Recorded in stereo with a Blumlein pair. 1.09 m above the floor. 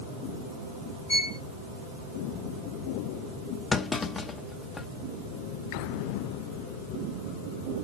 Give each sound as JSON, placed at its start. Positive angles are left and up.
{"t": 1.1, "sound": "a violin", "azimuth_deg": 70, "distance_m": 2.5}
{"t": 3.7, "sound": "a clunk", "azimuth_deg": 15, "distance_m": 0.5}